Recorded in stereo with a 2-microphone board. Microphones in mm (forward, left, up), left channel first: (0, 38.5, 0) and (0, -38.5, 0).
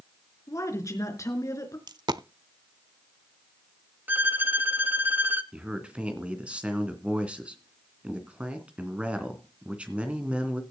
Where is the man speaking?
15° right (ahead or behind), 2.5 m.